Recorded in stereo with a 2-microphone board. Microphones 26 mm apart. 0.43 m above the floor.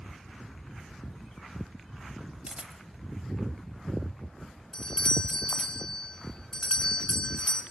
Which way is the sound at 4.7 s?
35° left (ahead or behind).